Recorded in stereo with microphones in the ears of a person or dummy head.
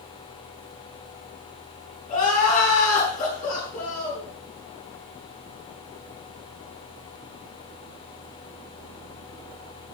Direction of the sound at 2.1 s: 50° left (ahead or behind).